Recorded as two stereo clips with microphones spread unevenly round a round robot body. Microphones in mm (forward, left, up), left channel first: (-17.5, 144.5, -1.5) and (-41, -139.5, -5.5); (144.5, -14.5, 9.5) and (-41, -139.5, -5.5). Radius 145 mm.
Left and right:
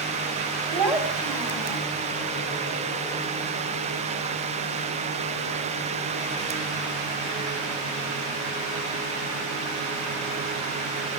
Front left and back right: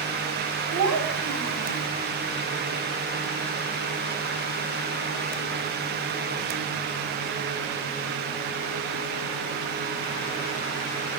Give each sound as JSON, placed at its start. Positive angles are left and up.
{"t": 0.7, "sound": "a child speaking", "azimuth_deg": 180, "distance_m": 3.5}